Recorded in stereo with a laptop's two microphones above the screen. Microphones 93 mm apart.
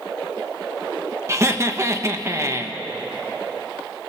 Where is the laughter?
30° right (ahead or behind), 1.3 m.